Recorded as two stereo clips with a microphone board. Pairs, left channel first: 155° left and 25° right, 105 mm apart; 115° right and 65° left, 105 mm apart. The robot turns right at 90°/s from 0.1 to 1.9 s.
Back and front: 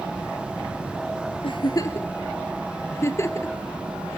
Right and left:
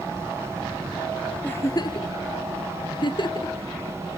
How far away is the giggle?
About 1.6 m.